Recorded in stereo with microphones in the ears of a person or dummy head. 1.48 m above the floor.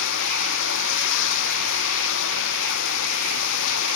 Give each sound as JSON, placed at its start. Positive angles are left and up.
{"t": 0.0, "sound": "running water", "side_deg": 75}